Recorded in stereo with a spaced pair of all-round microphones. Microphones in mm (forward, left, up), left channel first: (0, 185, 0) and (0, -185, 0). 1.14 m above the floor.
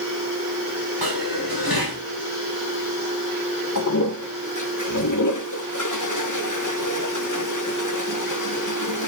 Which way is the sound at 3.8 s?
55° left (ahead or behind).